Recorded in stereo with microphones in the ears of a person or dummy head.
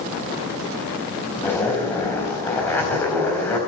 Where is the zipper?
5° left (ahead or behind), 4 m.